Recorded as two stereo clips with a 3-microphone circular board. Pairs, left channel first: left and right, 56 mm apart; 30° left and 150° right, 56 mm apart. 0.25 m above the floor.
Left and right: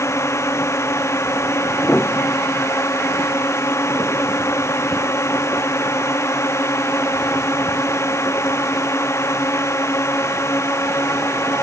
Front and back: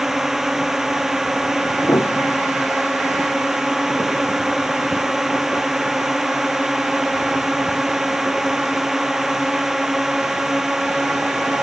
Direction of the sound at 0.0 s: 130° left.